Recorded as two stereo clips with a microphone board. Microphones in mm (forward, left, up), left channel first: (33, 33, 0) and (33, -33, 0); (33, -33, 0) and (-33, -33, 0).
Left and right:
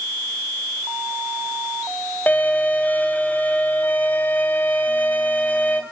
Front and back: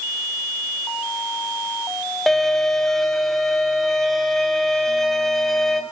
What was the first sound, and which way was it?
A violin, 80° left.